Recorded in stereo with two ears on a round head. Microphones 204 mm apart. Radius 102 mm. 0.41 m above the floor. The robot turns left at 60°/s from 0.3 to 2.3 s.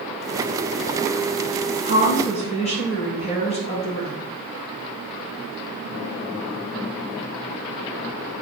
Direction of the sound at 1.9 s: 55° left (ahead or behind).